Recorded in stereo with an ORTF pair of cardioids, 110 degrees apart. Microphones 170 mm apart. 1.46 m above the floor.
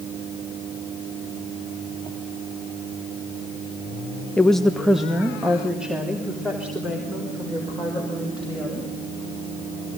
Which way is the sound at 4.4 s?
10° left.